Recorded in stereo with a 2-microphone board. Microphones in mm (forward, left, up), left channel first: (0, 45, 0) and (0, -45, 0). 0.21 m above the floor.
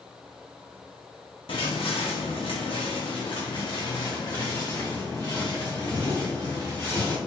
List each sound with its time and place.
1.5 s footsteps: 75° left (ahead or behind), 1.1 m; by 7.2 s 20° left (ahead or behind), 3 m